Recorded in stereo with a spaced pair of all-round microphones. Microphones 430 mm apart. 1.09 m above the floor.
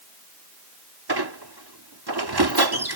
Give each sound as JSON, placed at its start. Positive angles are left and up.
{"t": 1.1, "sound": "a squeak", "side_deg": -70}